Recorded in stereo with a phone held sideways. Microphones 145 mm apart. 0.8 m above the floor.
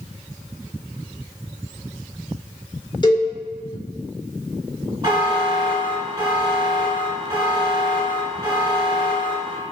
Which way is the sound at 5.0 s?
30° right (ahead or behind).